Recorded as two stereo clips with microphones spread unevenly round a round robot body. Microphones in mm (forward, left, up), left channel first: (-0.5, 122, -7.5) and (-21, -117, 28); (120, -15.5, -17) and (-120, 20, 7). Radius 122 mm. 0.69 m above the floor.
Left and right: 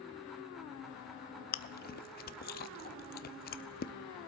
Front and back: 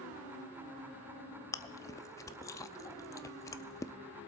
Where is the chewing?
60° left, 0.6 m.